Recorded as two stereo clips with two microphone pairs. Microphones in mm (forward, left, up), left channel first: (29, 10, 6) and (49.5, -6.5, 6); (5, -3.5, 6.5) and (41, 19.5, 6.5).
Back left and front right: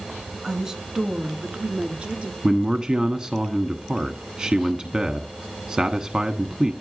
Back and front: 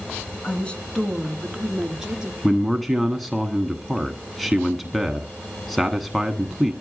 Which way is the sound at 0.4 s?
100° right.